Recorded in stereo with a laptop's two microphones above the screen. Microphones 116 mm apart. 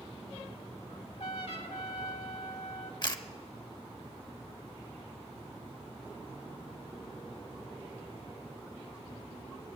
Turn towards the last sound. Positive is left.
turn(degrees=45)  # may be behind; listen again after turning